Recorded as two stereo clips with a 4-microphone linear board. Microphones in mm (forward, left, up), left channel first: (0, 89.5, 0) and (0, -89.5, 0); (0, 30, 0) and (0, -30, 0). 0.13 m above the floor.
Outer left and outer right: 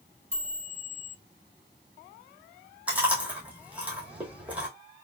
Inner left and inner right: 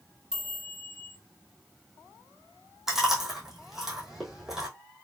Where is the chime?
10° right (ahead or behind), 2 m.